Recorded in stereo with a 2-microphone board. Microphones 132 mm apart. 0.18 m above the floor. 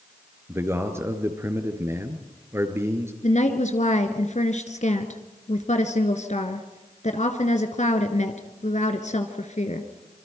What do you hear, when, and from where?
0.5 s a man speaking: 20° right (ahead or behind), 2.5 m
3.2 s a woman speaking: 60° left (ahead or behind), 2 m